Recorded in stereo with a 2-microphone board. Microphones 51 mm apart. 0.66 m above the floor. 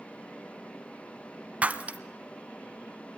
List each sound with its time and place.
1.6 s breaking glass: 25° right (ahead or behind), 0.8 m